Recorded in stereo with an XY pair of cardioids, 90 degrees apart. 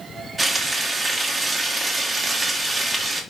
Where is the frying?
35° right, 2.5 m.